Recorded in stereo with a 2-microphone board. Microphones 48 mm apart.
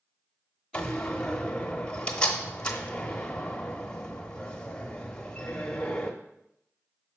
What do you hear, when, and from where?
0.7 s a door slam: 20° left (ahead or behind), 1.0 m